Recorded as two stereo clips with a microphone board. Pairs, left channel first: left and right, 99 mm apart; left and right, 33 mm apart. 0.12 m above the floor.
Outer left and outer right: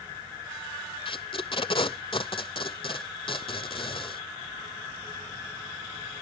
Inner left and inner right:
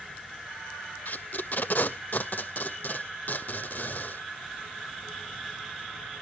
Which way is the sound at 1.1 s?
55° left (ahead or behind).